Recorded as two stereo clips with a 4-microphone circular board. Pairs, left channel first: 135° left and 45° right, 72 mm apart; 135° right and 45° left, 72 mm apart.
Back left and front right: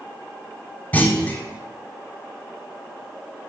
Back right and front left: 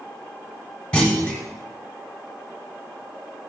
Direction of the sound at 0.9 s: 165° left.